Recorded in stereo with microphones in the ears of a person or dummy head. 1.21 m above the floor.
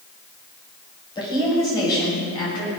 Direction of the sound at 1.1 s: 20° left (ahead or behind).